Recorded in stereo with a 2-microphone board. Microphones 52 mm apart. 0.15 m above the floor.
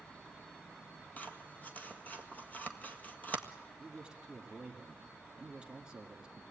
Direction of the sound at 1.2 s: 30° left (ahead or behind).